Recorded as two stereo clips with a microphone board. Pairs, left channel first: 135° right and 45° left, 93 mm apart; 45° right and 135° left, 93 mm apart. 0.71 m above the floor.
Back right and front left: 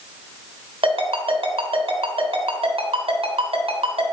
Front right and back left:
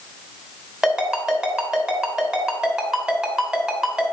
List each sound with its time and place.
0.8 s a ringtone: 50° left, 2 m